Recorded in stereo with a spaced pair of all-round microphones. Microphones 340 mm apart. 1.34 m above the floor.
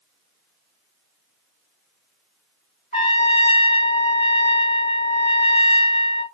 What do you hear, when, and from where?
2.9 s a trumpet: 20° left (ahead or behind), 1.7 m